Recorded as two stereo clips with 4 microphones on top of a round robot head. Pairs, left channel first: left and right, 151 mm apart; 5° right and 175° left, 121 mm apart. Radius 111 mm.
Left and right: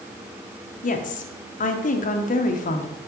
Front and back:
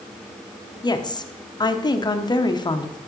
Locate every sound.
0.8 s a woman speaking: 55° left, 0.8 m